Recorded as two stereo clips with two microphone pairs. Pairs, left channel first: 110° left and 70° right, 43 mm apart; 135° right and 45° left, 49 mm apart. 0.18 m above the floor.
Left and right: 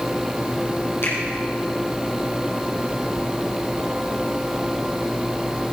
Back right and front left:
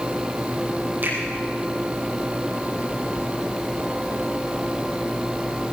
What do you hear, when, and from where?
1.0 s a finger snap: 85° left, 5.5 m